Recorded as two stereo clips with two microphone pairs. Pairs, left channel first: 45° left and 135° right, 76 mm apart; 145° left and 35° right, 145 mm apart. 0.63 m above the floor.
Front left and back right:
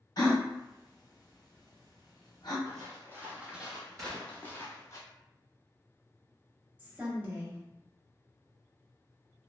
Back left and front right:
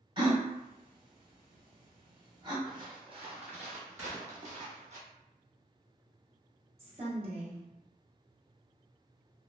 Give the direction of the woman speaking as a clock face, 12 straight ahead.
3 o'clock.